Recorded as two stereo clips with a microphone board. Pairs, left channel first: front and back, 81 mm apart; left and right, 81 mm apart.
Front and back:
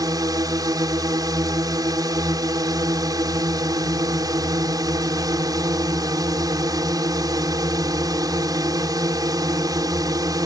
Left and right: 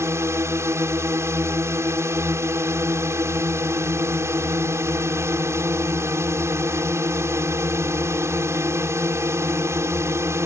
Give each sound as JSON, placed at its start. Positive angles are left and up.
{"t": 0.0, "sound": "a drone", "azimuth_deg": -145}